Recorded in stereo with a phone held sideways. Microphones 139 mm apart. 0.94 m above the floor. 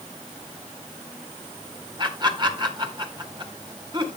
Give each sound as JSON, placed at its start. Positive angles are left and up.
{"t": 2.0, "sound": "laughter", "side_deg": -35, "distance_m": 2.5}